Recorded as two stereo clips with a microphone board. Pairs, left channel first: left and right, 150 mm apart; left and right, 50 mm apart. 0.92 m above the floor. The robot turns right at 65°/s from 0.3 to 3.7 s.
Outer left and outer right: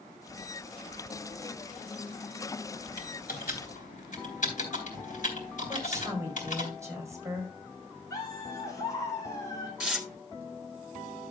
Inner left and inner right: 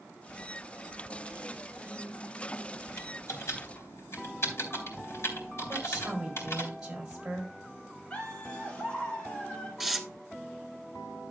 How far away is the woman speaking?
About 4.5 m.